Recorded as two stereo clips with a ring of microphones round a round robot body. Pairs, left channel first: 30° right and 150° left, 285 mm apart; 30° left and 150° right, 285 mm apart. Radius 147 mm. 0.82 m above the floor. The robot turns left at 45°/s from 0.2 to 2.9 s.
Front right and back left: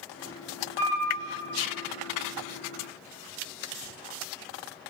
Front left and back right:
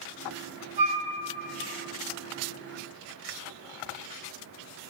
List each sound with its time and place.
0.8 s a flute: 160° right, 4 m; by 1.1 s 175° right, 4 m